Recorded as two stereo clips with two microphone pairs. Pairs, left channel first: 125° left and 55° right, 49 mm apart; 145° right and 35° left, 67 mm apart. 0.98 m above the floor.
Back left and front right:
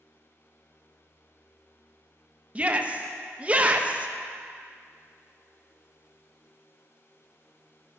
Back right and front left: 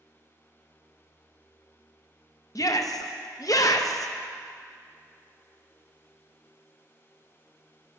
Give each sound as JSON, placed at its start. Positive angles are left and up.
{"t": 2.5, "sound": "a shout", "azimuth_deg": -115, "distance_m": 0.7}